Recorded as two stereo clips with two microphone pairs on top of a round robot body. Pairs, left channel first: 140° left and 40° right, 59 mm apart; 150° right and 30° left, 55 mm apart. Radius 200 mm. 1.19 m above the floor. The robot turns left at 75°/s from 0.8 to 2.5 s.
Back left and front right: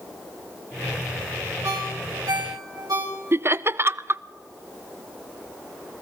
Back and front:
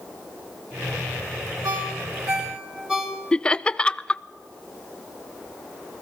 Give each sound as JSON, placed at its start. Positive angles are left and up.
{"t": 1.6, "sound": "a ringtone", "azimuth_deg": 20, "distance_m": 3.0}
{"t": 3.3, "sound": "laughter", "azimuth_deg": -80, "distance_m": 0.6}